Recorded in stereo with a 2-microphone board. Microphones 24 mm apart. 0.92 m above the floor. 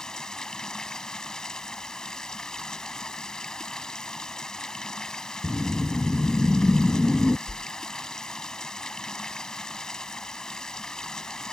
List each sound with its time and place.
0.0 s running water: 30° left (ahead or behind)
5.4 s a whoosh: 45° left (ahead or behind)
7.5 s a whoosh: 20° left (ahead or behind)